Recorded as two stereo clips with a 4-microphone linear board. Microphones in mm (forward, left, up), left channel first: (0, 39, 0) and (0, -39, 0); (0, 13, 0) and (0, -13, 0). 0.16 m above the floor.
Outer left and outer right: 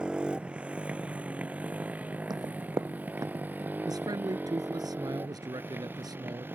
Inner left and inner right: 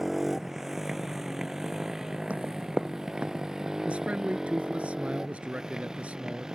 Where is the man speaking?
60° right (ahead or behind).